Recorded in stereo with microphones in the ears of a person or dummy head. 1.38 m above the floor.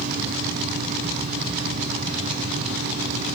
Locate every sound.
0.0 s a fan: 40° right (ahead or behind), 3 m